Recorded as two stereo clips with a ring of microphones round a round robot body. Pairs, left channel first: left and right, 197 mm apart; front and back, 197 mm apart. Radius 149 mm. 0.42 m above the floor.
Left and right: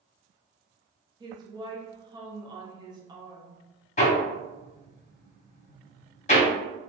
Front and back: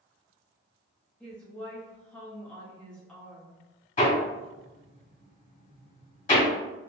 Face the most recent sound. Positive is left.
turn(degrees=45)